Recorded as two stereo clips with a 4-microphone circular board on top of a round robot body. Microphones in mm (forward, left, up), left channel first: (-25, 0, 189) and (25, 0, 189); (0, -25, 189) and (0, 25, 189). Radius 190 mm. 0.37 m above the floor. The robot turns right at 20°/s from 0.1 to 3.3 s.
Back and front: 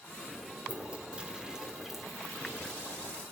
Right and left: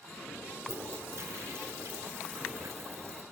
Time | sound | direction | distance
0.6 | a toilet flushing | 60° left | 3 m